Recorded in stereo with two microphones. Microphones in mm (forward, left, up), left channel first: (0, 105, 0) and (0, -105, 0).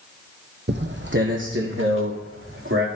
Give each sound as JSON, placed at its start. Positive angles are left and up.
{"t": 0.7, "sound": "footsteps", "side_deg": -55, "distance_m": 1.1}